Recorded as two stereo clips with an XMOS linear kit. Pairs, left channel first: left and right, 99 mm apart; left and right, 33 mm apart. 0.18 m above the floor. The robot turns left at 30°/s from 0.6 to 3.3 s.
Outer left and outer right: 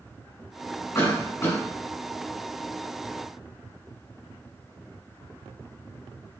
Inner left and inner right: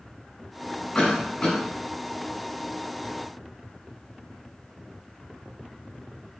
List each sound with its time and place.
0.9 s a cough: 35° left (ahead or behind), 1.7 m; by 1.6 s 25° left (ahead or behind), 1.7 m